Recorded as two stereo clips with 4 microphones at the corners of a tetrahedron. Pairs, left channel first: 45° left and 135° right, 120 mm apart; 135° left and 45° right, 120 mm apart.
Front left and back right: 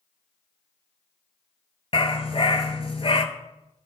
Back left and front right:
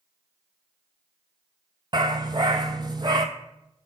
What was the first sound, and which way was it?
A dog barking, 5° left.